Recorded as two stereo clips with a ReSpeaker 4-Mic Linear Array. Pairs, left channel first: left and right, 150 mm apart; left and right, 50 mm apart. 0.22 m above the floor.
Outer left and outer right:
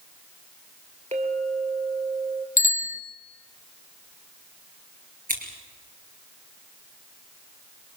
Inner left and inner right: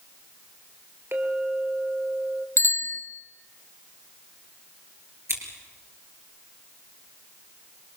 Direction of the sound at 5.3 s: 65° right (ahead or behind).